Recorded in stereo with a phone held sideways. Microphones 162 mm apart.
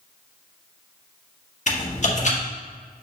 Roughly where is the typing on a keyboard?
Left.